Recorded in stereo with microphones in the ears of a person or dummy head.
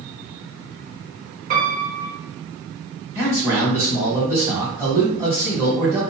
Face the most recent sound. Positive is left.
turn(degrees=-15)  # may be behind; listen again after turning